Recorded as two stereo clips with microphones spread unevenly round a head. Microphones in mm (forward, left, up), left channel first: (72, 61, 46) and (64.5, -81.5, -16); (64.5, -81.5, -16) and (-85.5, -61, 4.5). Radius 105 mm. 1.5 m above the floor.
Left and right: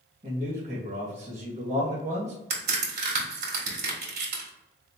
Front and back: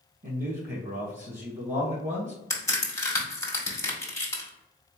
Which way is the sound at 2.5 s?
80° right.